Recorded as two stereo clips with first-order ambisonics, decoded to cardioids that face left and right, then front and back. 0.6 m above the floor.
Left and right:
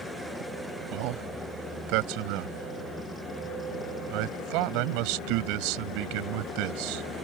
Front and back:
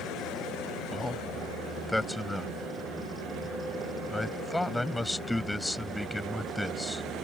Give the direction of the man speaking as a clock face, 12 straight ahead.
3 o'clock.